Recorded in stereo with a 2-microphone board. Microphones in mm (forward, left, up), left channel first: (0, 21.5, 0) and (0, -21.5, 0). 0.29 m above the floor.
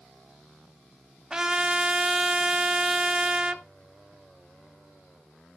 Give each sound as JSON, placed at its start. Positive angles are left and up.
{"t": 1.3, "sound": "a trumpet", "side_deg": -15, "distance_m": 0.9}